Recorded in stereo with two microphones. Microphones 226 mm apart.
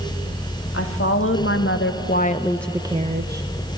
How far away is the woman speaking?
About 1.9 m.